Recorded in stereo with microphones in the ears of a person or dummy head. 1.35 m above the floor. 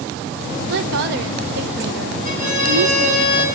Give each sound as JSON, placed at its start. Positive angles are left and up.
{"t": 0.7, "sound": "a woman speaking", "side_deg": -65, "distance_m": 0.6}
{"t": 2.2, "sound": "a violin", "side_deg": -50, "distance_m": 10.0}